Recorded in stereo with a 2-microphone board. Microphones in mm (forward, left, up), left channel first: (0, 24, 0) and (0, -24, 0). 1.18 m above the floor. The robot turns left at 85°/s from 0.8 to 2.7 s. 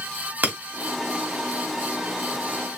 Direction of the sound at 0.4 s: 40° right (ahead or behind).